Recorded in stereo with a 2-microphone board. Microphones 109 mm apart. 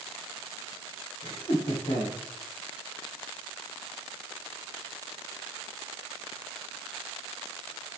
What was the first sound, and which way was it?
Laughter, 55° left (ahead or behind).